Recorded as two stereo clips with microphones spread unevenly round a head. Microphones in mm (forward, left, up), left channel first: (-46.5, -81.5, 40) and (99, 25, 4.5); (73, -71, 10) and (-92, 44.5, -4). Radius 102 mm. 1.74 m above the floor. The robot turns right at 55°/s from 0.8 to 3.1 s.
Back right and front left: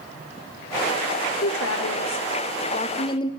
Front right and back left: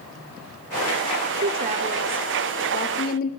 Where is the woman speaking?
175° right, 0.5 m; by 3.3 s 80° right, 0.5 m.